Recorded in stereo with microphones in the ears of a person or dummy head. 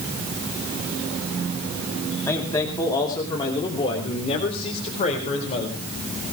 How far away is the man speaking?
About 2.5 m.